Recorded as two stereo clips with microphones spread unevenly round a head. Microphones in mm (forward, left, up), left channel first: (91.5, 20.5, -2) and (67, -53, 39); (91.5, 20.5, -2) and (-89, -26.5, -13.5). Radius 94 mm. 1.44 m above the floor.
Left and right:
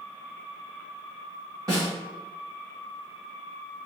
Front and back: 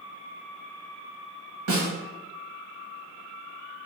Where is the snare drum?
155° right, 1.2 m.